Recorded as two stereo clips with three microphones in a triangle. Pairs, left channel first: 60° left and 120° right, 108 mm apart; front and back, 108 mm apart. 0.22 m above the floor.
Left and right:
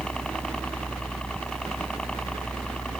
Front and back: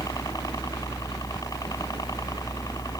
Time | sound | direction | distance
0.0 | a helicopter | 15° right | ?